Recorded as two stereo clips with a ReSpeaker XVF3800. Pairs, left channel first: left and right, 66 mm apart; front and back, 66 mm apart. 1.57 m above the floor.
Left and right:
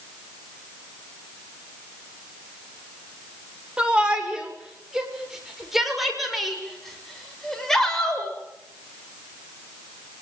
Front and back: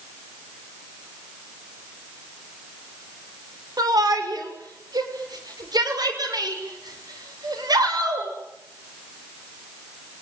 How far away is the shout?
About 6 m.